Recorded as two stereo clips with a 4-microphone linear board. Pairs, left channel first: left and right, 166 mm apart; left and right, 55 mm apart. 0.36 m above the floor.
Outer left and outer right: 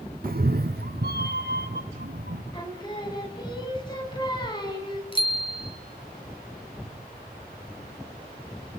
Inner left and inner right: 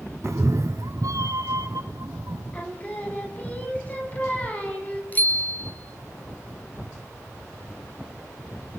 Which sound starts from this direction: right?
A cat meowing, at 0.2 s.